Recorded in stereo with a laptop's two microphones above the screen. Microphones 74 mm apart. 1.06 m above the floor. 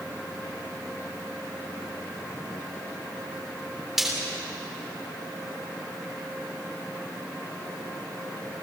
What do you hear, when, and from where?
4.0 s frying: 5° right (ahead or behind), 3.5 m